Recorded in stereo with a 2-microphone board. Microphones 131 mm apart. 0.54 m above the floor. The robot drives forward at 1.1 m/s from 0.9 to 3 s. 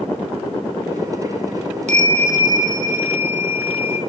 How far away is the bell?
About 0.7 m.